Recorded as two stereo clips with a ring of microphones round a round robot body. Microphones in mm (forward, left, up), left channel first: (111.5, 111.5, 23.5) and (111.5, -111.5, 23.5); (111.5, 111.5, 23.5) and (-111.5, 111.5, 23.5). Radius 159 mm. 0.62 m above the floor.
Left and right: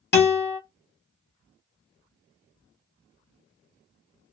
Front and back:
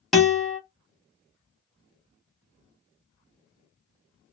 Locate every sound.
0.1 s a guitar: 90° left, 1.4 m